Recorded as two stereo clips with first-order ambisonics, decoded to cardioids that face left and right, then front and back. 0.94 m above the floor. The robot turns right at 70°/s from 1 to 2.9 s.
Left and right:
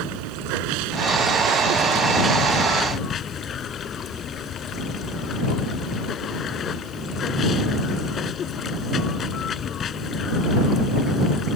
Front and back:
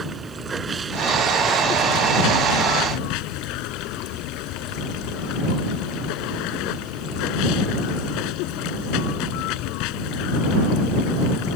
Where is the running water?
105° right; by 11.6 s 25° left.